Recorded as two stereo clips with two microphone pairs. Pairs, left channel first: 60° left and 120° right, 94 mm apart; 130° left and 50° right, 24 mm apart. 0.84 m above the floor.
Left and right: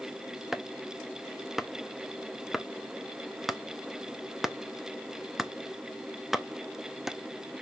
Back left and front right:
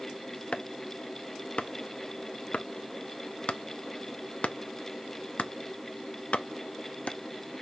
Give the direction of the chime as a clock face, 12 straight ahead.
No chime in this recording.